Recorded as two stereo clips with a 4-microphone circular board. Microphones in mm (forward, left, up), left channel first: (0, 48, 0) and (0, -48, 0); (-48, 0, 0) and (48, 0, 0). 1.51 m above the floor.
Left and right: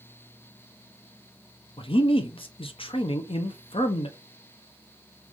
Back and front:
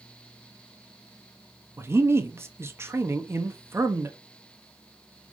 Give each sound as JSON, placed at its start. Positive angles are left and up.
{"t": 1.8, "sound": "a man speaking", "azimuth_deg": 65, "distance_m": 0.8}